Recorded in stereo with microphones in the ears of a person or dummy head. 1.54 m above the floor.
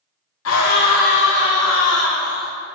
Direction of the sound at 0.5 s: 85° left.